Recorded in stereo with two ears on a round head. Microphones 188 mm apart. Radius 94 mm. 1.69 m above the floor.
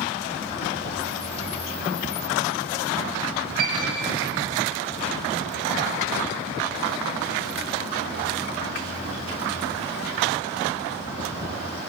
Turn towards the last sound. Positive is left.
turn(degrees=-45)  # may be behind; listen again after turning